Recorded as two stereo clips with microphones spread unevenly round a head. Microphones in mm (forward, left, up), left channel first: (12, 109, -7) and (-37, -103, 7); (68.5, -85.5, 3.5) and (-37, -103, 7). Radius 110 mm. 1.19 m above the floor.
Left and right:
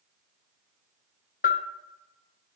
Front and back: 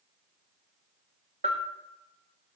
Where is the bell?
130° left, 1.0 m.